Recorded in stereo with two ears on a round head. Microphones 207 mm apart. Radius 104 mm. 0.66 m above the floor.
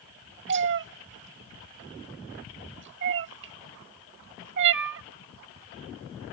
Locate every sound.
0.5 s a cat meowing: 50° right (ahead or behind)